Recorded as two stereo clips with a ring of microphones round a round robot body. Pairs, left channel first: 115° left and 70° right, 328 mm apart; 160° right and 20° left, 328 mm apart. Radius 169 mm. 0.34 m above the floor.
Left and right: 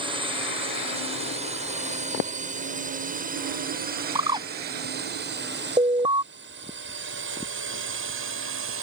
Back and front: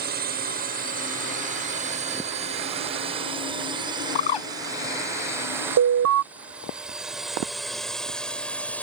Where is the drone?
5° right; by 8.8 s 75° right.